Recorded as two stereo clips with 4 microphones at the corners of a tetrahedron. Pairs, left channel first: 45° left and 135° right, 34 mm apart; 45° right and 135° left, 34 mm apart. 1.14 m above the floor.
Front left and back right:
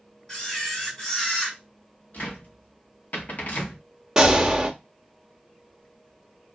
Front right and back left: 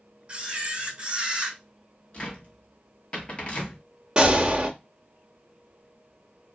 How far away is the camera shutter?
About 1.0 m.